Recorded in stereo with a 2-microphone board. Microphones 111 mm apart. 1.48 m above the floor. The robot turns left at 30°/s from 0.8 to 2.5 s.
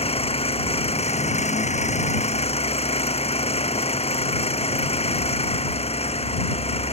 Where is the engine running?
115° left; by 6.9 s 65° left.